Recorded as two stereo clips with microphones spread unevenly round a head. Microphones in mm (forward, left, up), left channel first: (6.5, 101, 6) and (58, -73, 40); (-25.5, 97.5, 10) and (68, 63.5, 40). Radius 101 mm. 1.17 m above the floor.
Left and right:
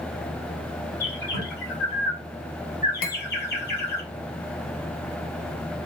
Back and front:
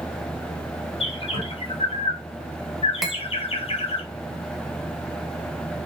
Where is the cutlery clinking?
65° left, 1.1 m.